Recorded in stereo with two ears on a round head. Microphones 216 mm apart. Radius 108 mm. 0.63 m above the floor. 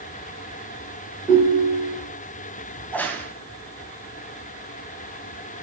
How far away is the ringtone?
About 6.5 m.